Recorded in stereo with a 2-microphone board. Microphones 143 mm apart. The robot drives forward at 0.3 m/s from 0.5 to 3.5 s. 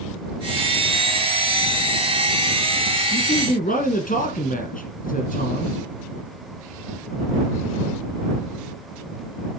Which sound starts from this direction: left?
A man speaking, at 3.1 s.